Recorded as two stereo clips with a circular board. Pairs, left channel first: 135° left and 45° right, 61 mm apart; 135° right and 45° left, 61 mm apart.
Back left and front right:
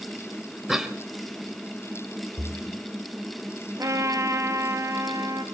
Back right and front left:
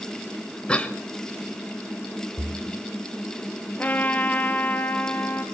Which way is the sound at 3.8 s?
75° right.